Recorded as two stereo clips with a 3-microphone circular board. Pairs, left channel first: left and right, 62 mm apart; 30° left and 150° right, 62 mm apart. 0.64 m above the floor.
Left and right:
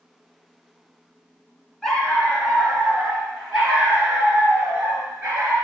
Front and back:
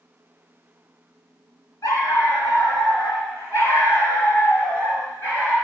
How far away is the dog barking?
About 1.8 m.